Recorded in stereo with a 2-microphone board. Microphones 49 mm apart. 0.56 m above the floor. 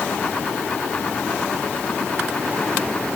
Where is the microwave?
No microwave in this recording.